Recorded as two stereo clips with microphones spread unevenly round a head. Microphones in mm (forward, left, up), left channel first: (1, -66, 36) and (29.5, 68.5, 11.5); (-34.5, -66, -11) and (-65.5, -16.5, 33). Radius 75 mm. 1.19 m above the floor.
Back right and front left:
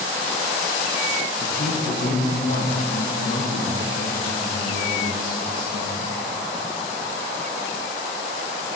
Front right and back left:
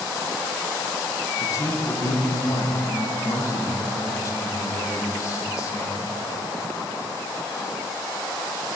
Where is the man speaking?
75° right, 1.1 m.